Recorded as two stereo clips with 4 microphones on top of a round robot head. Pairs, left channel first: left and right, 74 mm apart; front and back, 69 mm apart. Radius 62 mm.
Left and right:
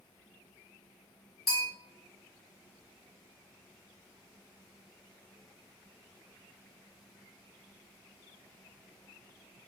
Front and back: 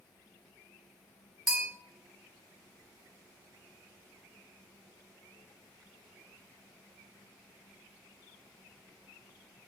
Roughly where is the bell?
Left.